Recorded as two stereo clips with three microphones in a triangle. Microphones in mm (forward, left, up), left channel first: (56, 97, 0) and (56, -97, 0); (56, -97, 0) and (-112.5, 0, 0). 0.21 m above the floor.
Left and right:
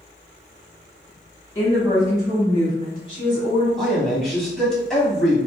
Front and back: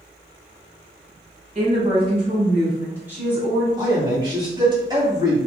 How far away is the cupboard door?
No cupboard door in this recording.